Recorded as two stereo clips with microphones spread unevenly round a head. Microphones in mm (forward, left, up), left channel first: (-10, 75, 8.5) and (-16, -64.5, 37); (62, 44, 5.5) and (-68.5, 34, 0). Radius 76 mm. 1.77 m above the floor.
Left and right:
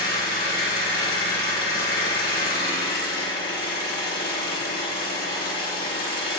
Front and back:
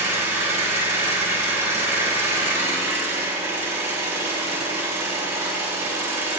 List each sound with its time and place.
0.0 s an engine running: 115° left, 3 m